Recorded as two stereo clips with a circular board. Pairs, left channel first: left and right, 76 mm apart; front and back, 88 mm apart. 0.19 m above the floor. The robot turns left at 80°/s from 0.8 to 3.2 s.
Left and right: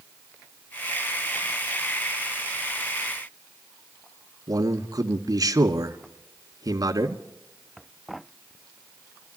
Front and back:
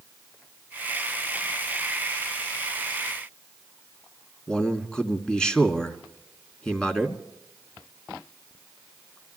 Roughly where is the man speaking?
Right.